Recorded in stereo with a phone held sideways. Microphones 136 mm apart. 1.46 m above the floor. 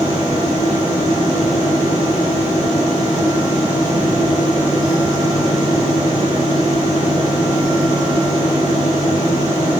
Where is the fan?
45° right (ahead or behind), 1.8 m.